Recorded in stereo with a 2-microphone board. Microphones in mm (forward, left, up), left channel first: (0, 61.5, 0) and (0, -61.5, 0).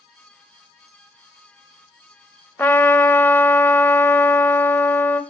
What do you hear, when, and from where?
2.6 s a trumpet: 15° left (ahead or behind), 0.6 m